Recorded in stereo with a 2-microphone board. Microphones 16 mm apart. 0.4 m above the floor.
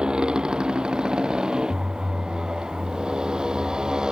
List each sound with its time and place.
0.0 s a motorcycle: 70° right (ahead or behind); by 4.1 s 55° right (ahead or behind)